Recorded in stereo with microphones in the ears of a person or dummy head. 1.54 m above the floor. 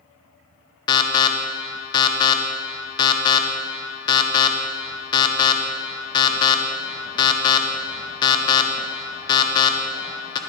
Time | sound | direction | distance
0.9 | an alarm | 25° left (ahead or behind) | 0.9 m